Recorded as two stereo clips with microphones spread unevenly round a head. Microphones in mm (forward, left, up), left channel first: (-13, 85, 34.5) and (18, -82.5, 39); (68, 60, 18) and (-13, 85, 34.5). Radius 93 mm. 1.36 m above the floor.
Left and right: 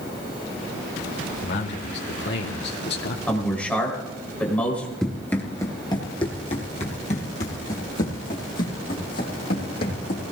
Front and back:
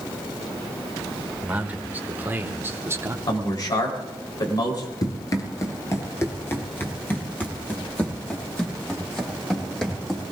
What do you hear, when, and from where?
1.4 s a man speaking: 90° left, 2.5 m; by 3.2 s 105° left, 1.5 m
3.3 s a man speaking: 20° left, 4 m
5.0 s running footsteps: 15° left, 1.6 m; by 10.2 s 70° left, 4 m